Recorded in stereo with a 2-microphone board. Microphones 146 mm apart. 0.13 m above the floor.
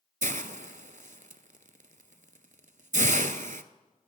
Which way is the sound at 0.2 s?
60° right (ahead or behind).